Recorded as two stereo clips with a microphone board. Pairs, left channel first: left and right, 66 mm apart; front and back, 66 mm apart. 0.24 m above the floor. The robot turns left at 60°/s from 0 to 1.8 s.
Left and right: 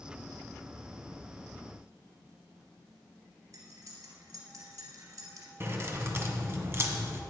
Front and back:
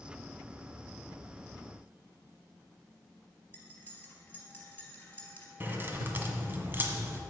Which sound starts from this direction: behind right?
Keys jangling, at 5.6 s.